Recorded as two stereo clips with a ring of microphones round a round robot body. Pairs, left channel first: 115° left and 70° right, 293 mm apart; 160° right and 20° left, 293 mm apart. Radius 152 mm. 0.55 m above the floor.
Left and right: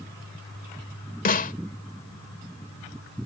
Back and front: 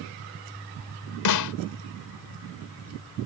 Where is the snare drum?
175° left.